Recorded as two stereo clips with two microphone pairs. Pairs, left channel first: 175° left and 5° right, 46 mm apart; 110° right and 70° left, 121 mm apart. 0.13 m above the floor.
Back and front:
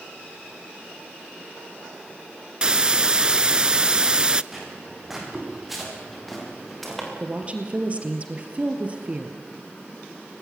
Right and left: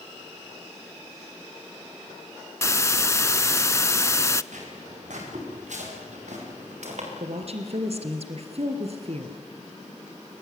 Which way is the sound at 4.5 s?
80° left.